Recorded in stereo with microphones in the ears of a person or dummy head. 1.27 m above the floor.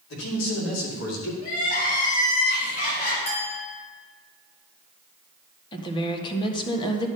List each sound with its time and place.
0.1 s a man speaking: 80° left, 3 m; by 1.3 s 85° left, 2.5 m
1.4 s crying: 55° left (ahead or behind), 4 m
3.3 s a clink: 40° left (ahead or behind), 2.5 m
5.7 s a woman speaking: 25° left (ahead or behind), 1.3 m